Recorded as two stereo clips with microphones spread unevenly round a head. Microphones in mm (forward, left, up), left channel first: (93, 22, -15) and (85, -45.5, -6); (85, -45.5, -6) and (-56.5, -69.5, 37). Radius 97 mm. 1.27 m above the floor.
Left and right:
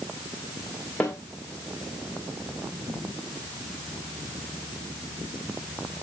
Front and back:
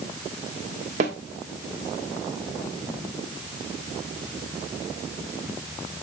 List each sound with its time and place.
1.0 s a snare drum: 165° left, 1.4 m